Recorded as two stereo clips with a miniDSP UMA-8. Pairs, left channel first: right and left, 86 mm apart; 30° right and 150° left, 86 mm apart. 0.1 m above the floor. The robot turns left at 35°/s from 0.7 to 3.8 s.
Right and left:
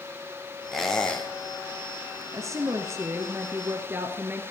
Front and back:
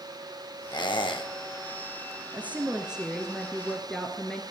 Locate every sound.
0.7 s a squeak: 5° left, 2.5 m; by 1.3 s 20° right, 2.5 m
2.3 s a woman speaking: 95° left, 1.4 m; by 4.4 s 45° left, 1.4 m